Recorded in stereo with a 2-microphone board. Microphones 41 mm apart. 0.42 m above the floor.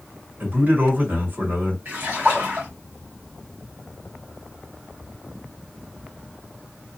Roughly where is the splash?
Right.